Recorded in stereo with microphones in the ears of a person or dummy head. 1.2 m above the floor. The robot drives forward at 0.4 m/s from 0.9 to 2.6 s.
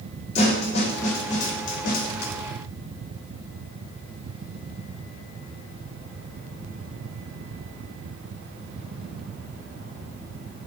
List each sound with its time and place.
0.3 s a snare drum: 35° left (ahead or behind), 1.3 m; by 2.3 s 55° left (ahead or behind), 0.9 m